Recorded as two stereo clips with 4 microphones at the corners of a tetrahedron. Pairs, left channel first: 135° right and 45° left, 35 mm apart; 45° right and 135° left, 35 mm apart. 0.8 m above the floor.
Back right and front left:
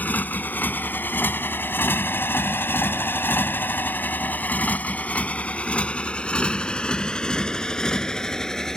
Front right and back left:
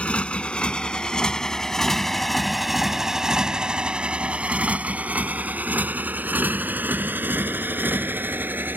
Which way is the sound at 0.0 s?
95° right.